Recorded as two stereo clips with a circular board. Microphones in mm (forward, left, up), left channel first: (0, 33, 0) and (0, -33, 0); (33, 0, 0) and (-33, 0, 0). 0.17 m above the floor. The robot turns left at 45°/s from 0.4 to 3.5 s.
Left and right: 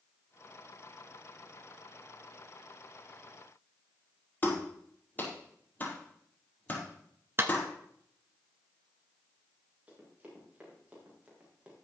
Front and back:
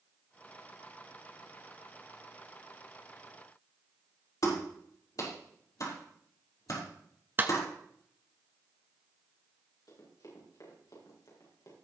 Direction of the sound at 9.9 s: 20° right.